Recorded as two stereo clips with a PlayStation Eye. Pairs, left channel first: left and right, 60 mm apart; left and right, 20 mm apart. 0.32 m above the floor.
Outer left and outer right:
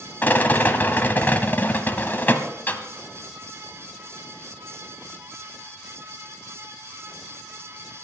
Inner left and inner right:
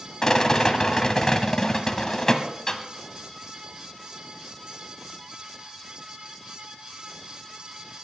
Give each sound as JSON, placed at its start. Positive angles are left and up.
{"t": 0.2, "sound": "a rattle", "side_deg": 30, "distance_m": 1.3}